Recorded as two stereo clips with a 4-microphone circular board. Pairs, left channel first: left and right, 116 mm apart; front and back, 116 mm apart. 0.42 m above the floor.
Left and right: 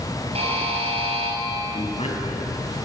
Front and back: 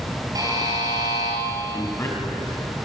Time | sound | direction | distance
0.3 | a buzzer | 125° right | 5 m
1.7 | a man speaking | 65° left | 4 m